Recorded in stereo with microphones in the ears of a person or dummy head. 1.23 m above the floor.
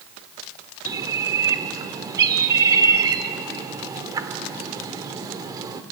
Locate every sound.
0.8 s a bird: 25° right (ahead or behind), 1.3 m